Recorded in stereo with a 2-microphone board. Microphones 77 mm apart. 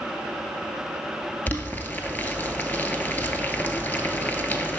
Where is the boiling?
25° left (ahead or behind), 0.5 m.